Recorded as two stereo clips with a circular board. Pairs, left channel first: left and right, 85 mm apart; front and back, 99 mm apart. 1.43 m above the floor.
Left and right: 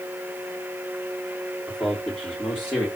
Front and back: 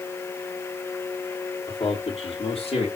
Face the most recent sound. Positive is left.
turn(degrees=20)